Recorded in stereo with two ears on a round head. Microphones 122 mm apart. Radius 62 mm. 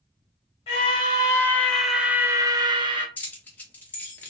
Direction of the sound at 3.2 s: 15° left (ahead or behind).